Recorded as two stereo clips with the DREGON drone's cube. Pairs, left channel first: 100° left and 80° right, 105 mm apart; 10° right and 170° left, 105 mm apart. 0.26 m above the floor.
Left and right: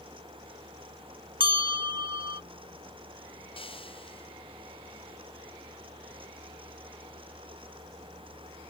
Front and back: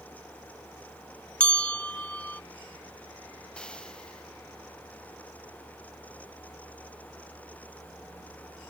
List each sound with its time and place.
1.4 s a bell: 90° right
3.6 s frying: 70° left